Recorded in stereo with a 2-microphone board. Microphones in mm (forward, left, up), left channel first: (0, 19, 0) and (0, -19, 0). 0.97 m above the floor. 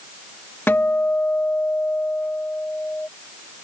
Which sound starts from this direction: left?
A guitar, at 0.7 s.